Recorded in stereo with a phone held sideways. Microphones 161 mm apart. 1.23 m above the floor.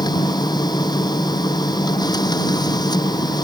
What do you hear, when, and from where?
0.0 s a machine running: 25° left (ahead or behind)